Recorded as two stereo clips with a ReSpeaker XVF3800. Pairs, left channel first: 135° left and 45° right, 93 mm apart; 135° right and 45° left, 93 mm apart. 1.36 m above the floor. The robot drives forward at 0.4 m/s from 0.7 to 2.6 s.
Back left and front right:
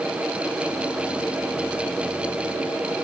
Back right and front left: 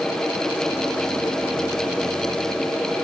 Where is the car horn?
No car horn in this recording.